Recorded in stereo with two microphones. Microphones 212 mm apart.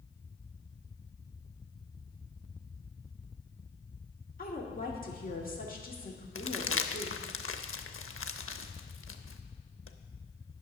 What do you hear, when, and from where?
4.4 s a woman speaking: 45° left (ahead or behind), 1.7 m
6.3 s crumpling: 80° left, 0.6 m